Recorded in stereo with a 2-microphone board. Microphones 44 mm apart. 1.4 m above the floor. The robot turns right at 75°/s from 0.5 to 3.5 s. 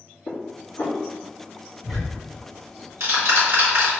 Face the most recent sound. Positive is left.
turn(degrees=-55)  # may be behind; listen again after turning